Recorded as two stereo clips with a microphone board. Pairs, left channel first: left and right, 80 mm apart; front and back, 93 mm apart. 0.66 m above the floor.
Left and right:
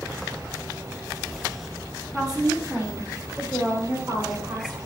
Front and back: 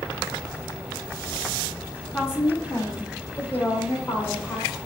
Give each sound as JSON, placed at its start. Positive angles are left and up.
{"t": 2.1, "sound": "a woman speaking", "azimuth_deg": 10, "distance_m": 0.9}